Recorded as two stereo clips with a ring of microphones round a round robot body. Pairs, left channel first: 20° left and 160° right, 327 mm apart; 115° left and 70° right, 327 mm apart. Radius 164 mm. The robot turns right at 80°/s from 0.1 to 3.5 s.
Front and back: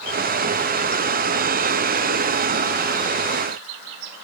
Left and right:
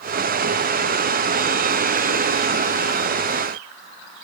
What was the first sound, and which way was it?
Only background noise.